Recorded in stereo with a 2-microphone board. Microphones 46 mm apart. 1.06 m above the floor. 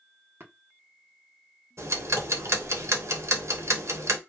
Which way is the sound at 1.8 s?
65° right (ahead or behind).